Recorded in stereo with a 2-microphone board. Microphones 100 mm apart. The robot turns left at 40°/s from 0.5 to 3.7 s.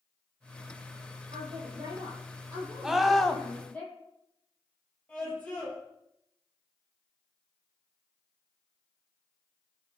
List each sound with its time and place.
1.3 s a woman speaking: 100° right, 8 m; by 3.8 s 165° left, 8 m
2.8 s a scream: 5° right (ahead or behind), 1.3 m; by 3.4 s 10° left (ahead or behind), 1.3 m
5.1 s a scream: 15° left (ahead or behind), 7 m